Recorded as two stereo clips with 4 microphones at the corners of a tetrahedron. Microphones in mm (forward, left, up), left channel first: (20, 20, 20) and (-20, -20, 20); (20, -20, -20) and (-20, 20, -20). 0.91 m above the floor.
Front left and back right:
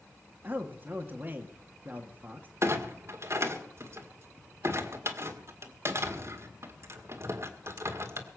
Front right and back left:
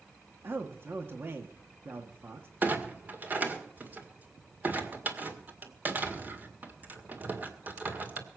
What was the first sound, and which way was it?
A man speaking, 175° left.